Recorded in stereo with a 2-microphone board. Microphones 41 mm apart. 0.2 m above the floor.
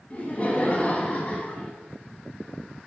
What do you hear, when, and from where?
0.1 s laughter: 30° left (ahead or behind), 1.4 m